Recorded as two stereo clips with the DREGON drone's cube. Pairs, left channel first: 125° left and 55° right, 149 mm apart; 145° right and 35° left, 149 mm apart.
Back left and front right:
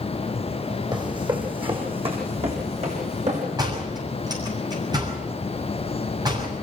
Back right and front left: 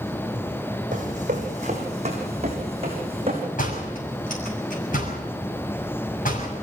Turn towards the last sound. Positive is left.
turn(degrees=-120)